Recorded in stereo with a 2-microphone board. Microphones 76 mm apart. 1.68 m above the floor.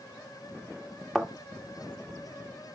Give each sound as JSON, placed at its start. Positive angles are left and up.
{"t": 1.1, "sound": "a thud", "side_deg": 0, "distance_m": 1.3}